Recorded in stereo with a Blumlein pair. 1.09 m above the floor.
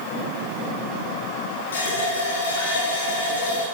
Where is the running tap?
70° left, 7 m.